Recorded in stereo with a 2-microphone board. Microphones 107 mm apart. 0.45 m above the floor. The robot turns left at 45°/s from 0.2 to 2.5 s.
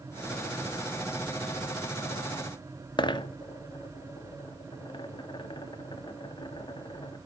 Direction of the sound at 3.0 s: 45° left (ahead or behind).